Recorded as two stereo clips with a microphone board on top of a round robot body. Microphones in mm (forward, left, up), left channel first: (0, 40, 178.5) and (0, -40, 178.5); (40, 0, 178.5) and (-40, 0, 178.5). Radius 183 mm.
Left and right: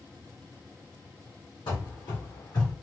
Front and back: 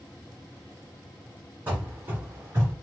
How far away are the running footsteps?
About 2.0 m.